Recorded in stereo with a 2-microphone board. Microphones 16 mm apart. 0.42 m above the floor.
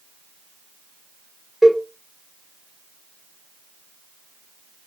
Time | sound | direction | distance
1.6 | a cowbell | 15° right (ahead or behind) | 1.0 m